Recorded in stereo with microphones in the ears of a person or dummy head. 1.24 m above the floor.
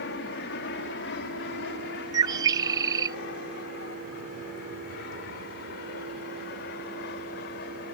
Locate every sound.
0.0 s an aircraft: 55° left (ahead or behind)
2.1 s a bird: 20° right (ahead or behind)